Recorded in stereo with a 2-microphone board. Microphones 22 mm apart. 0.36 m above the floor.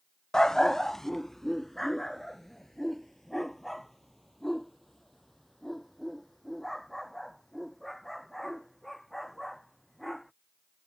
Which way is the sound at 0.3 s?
35° left (ahead or behind).